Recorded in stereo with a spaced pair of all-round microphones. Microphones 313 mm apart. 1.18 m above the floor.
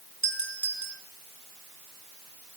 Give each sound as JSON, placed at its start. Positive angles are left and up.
{"t": 0.2, "sound": "a doorbell", "side_deg": 65, "distance_m": 5.5}